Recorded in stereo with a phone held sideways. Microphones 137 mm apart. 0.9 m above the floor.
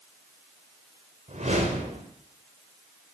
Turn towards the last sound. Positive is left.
turn(degrees=-55)  # may be behind; listen again after turning